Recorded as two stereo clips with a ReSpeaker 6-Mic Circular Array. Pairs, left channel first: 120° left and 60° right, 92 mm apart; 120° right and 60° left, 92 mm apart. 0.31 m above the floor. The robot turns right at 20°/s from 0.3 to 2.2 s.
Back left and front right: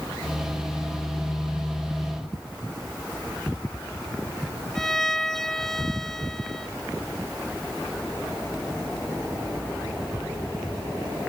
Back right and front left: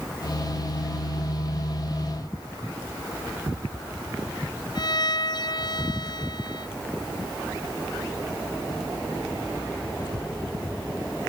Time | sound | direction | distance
4.8 | a violin | 155° right | ?